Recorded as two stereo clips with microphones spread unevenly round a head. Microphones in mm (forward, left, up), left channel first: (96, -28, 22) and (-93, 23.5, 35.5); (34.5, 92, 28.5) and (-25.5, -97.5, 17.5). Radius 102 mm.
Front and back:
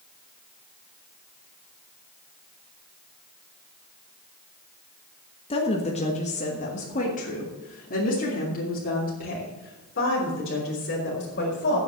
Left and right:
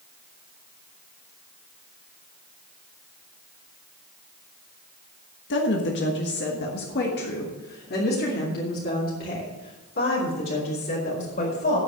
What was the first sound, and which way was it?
A woman speaking, 45° left.